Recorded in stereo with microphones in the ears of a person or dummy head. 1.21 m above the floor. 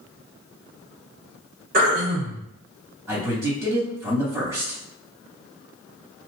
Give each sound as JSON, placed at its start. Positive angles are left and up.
{"t": 1.7, "sound": "throat clearing", "side_deg": -50, "distance_m": 1.4}
{"t": 3.1, "sound": "a man speaking", "side_deg": -10, "distance_m": 1.9}